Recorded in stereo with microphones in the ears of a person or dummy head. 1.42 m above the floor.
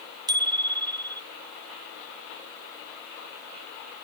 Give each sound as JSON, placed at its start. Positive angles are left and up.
{"t": 0.3, "sound": "a bicycle bell", "side_deg": -20}